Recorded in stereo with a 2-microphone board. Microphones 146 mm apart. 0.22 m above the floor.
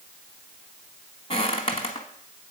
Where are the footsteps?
45° left (ahead or behind), 1.0 m.